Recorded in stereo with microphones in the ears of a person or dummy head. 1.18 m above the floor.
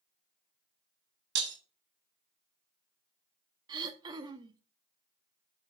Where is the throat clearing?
25° right (ahead or behind), 0.9 m.